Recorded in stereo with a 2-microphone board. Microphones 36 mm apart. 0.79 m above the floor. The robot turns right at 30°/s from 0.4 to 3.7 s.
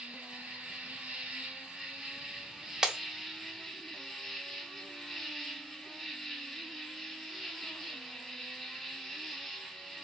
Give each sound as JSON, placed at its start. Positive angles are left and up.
{"t": 0.0, "sound": "an insect", "azimuth_deg": -90, "distance_m": 0.8}
{"t": 2.8, "sound": "breaking glass", "side_deg": -20, "distance_m": 0.5}